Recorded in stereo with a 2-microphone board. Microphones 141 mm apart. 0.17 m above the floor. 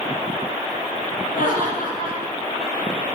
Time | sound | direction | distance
1.3 | laughter | 75° left (ahead or behind) | 6 m